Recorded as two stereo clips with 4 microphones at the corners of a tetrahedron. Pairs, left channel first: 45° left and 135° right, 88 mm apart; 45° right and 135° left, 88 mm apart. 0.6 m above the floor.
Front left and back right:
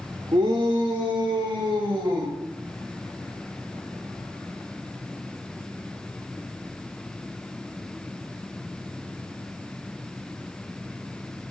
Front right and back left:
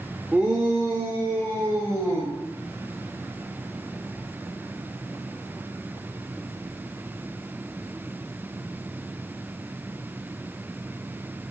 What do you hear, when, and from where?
0.3 s a shout: 150° right, 1.2 m; by 2.3 s 165° right, 3 m